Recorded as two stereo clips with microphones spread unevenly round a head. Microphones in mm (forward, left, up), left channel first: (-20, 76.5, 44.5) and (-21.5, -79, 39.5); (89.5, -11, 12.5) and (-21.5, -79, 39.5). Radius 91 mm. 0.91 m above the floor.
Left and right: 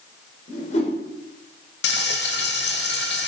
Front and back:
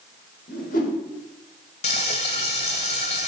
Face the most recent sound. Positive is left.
turn(degrees=90)